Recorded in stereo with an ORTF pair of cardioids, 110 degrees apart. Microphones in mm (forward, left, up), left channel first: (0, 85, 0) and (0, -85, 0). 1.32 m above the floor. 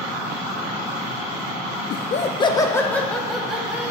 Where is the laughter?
60° left, 0.5 m; by 3.9 s 5° right, 1.5 m.